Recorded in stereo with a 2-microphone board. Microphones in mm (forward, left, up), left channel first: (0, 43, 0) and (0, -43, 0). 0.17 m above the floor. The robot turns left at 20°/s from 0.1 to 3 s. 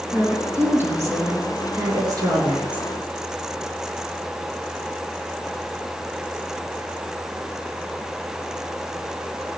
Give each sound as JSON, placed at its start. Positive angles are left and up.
{"t": 0.1, "sound": "a woman speaking", "azimuth_deg": -15, "distance_m": 3.5}